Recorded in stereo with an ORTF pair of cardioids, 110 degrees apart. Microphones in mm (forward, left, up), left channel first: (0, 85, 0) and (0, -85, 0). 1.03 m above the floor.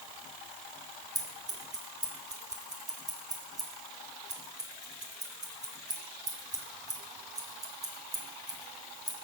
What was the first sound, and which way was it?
Scissors, 20° right.